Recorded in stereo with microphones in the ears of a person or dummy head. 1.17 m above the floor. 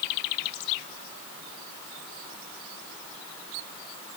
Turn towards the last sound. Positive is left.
No sound to turn to.